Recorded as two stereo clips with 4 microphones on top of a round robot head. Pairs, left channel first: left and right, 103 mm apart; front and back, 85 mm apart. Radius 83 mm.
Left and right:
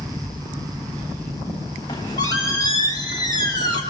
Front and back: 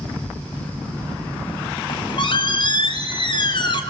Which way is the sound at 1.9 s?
30° left.